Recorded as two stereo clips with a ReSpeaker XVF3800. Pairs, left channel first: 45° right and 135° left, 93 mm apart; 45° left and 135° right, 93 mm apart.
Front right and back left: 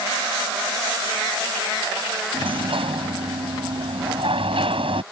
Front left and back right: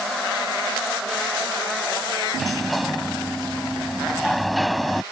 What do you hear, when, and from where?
2.3 s a sliding door: 135° left